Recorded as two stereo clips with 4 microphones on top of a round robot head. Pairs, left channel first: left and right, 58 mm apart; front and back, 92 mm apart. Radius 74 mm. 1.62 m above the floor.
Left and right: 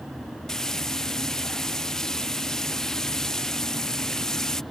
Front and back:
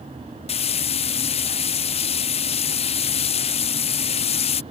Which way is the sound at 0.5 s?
5° left.